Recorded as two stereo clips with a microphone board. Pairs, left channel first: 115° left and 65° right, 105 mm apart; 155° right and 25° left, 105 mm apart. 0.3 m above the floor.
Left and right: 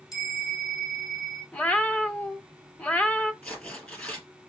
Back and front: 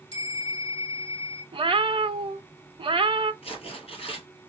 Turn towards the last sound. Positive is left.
turn(degrees=-170)